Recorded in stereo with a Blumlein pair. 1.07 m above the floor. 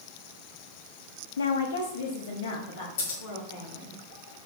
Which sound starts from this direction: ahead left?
Scissors, at 3.0 s.